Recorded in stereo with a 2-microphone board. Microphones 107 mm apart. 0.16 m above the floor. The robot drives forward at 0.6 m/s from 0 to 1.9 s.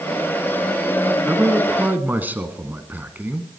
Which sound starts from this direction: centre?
A man speaking, at 1.3 s.